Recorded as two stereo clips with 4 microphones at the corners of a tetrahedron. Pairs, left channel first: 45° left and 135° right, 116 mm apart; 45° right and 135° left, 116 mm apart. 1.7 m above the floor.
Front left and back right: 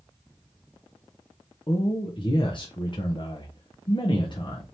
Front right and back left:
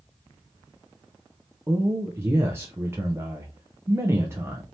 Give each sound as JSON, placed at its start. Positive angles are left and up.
{"t": 1.7, "sound": "a man speaking", "azimuth_deg": 70, "distance_m": 0.7}